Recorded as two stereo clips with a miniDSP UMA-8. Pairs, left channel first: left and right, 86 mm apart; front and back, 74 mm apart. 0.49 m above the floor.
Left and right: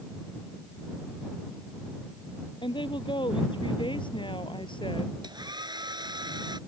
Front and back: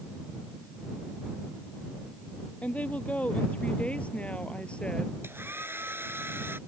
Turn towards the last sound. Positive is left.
turn(degrees=-125)